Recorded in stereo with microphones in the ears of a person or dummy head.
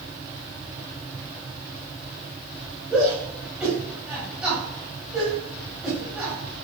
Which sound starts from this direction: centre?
A shout, at 2.9 s.